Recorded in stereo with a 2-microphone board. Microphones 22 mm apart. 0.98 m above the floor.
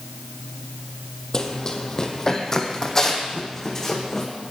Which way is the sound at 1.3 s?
30° left (ahead or behind).